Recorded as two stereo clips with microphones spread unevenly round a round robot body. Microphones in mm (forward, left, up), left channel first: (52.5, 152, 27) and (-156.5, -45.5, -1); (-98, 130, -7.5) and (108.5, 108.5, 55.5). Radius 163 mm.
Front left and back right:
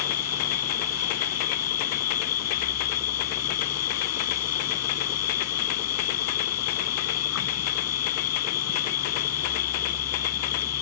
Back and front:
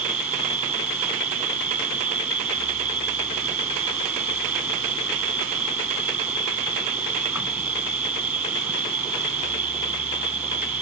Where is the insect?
75° left.